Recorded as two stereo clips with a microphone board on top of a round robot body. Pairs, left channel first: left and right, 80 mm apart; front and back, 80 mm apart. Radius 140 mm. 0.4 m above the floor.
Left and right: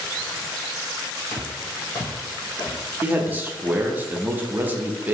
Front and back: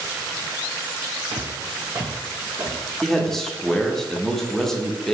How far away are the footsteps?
About 0.5 m.